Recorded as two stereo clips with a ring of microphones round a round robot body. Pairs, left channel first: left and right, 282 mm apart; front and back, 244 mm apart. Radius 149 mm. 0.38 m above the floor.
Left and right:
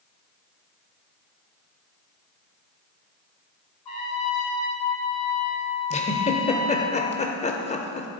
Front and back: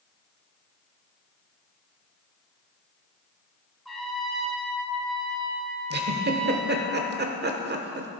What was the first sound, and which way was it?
A trumpet, 90° left.